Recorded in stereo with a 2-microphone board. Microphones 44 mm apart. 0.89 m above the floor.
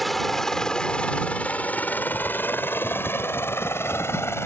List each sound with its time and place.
0.0 s a helicopter: centre (ahead or behind); by 4.5 s 70° left (ahead or behind)